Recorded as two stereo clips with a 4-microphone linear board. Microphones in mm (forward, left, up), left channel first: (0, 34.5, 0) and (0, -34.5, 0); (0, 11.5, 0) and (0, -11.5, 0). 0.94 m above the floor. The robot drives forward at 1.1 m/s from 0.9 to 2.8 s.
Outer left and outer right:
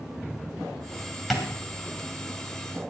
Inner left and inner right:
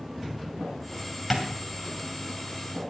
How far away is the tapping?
About 2.5 m.